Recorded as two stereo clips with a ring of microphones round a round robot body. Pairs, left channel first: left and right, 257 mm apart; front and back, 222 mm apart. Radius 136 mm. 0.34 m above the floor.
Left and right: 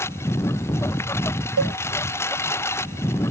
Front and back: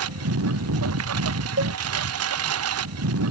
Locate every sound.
0.0 s a lawn mower: 170° left
1.6 s a cowbell: 130° right